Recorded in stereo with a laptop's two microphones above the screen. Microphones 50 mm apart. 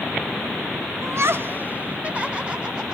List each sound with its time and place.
1.0 s laughter: 70° right (ahead or behind), 0.6 m; by 3.0 s 20° right (ahead or behind), 2.5 m